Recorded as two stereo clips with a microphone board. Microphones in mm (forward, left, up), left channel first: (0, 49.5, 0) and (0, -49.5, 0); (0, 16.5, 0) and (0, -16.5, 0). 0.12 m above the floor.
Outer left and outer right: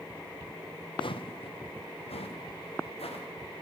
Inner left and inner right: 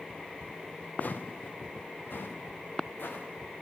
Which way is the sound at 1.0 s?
55° left (ahead or behind).